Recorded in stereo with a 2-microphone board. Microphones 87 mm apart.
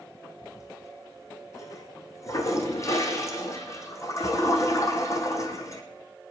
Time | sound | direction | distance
0.4 | a toilet flushing | 35° left (ahead or behind) | 2.5 m